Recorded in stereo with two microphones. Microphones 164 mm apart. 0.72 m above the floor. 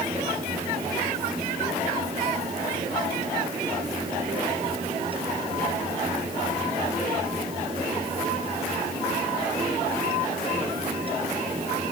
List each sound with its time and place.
Only background noise.